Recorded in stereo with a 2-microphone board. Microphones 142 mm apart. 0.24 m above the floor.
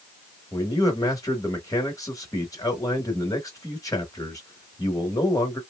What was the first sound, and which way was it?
A man speaking, 25° left (ahead or behind).